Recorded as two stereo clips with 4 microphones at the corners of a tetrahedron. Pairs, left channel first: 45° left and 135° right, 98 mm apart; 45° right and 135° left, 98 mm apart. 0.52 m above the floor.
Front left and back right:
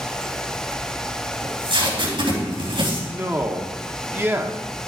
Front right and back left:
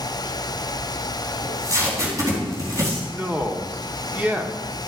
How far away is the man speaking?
About 0.9 m.